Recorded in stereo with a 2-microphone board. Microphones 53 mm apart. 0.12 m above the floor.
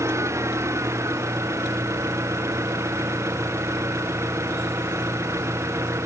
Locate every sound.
0.0 s an engine running: 65° right (ahead or behind)